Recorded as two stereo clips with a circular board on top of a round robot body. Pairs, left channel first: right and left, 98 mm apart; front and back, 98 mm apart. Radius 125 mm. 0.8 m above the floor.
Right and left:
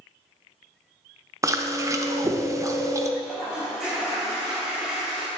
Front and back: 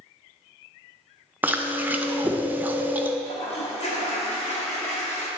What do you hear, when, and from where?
1.4 s chewing: 120° left, 0.7 m
3.2 s a toilet flushing: 5° left, 1.2 m